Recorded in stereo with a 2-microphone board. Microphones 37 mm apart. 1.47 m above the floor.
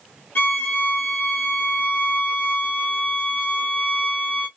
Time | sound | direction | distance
0.3 | a violin | 65° left (ahead or behind) | 1.1 m